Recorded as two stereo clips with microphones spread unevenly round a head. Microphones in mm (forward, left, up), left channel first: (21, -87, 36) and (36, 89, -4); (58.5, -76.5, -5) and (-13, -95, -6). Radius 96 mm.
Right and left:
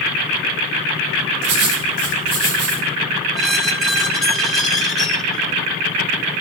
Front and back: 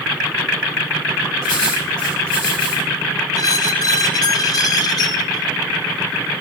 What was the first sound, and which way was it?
Writing, 80° left.